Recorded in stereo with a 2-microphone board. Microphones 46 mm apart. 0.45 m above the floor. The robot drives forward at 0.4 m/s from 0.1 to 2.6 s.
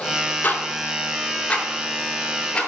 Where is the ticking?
45° left (ahead or behind), 1.2 m; by 2.7 s 25° left (ahead or behind), 1.9 m.